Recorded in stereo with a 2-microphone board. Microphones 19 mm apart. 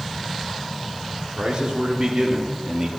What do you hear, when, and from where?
1.4 s a man speaking: 50° right (ahead or behind), 3.5 m; by 2.9 s 30° right (ahead or behind), 2.5 m